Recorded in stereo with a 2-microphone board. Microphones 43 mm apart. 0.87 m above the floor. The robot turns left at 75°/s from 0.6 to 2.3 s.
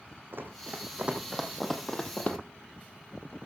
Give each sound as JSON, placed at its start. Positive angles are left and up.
{"t": 0.3, "sound": "running footsteps", "side_deg": -60, "distance_m": 2.5}